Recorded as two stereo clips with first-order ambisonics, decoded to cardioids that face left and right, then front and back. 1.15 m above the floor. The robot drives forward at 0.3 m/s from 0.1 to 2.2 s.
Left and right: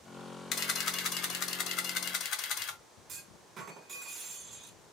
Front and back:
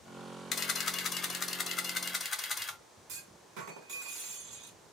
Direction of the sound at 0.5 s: 55° left.